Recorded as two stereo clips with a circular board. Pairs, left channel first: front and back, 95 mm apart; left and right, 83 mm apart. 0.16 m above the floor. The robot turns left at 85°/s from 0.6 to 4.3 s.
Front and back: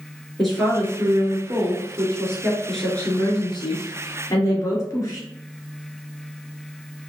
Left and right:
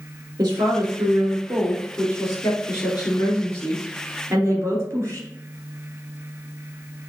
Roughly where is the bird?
No bird in this recording.